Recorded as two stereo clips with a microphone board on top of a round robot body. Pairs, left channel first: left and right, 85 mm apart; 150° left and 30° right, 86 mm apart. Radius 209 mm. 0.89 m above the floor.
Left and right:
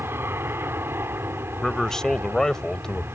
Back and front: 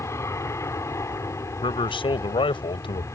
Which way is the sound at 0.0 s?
155° right.